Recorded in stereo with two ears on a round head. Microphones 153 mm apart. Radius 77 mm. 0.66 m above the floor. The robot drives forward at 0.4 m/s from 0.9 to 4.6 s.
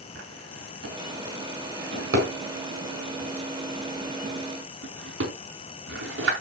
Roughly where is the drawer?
Right.